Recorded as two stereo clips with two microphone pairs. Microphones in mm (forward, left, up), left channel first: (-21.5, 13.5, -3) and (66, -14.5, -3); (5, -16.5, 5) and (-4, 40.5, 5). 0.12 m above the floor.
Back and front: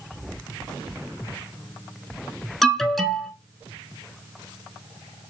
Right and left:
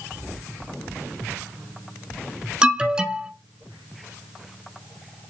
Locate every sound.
2.6 s an alarm: 75° left, 0.9 m